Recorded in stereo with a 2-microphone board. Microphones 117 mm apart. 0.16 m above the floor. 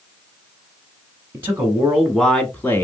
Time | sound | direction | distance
1.3 | a man speaking | 20° right (ahead or behind) | 1.1 m